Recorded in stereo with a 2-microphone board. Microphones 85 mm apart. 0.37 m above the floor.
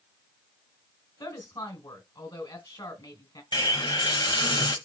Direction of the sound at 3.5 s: 65° left (ahead or behind).